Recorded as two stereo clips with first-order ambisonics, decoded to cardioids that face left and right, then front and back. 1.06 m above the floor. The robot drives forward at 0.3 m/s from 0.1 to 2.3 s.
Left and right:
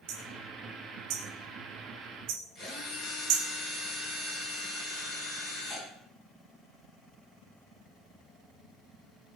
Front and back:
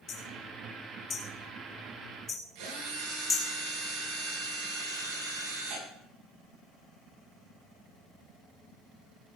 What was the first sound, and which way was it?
Hammering, 60° right.